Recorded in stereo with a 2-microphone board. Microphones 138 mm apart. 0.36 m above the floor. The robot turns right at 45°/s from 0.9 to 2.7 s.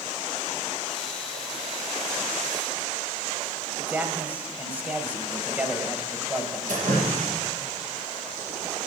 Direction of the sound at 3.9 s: 10° right (ahead or behind).